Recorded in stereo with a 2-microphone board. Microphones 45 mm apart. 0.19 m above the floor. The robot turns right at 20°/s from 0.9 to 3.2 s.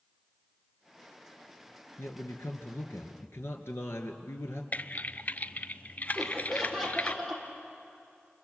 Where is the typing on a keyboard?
40° left (ahead or behind), 0.7 m.